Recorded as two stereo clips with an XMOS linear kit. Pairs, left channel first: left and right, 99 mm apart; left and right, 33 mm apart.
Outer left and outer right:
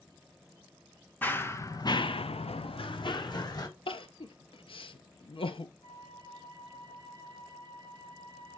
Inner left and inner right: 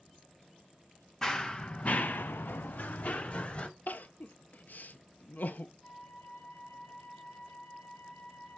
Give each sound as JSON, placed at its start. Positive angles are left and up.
{"t": 1.2, "sound": "running footsteps", "side_deg": 15, "distance_m": 1.1}
{"t": 3.9, "sound": "crying", "side_deg": 65, "distance_m": 0.5}
{"t": 5.8, "sound": "a flute", "side_deg": 75, "distance_m": 4.0}